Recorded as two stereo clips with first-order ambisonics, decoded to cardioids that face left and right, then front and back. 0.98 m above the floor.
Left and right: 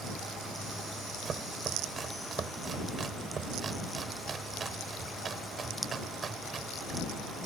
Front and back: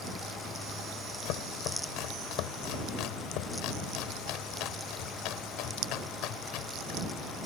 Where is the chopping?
25° right.